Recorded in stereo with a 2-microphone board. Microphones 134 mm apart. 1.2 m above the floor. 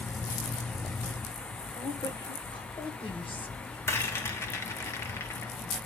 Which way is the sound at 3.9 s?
20° left (ahead or behind).